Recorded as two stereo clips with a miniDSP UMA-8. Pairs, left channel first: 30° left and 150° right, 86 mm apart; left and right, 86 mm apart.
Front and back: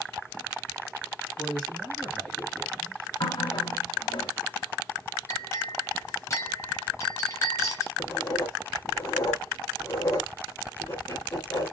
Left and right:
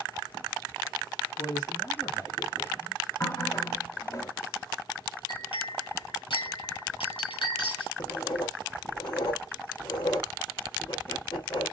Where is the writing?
75° left, 2.5 m.